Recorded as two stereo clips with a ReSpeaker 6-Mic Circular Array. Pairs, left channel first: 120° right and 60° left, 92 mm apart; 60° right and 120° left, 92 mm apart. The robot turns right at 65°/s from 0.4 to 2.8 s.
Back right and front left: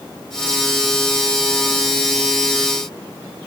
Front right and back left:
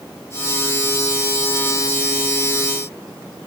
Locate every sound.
Only background noise.